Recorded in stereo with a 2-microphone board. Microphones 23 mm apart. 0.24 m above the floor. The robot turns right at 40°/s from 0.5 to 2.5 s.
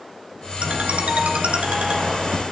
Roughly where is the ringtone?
Behind right.